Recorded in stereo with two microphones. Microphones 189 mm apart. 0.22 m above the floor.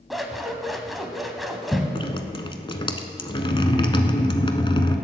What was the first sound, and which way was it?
Scissors, centre (ahead or behind).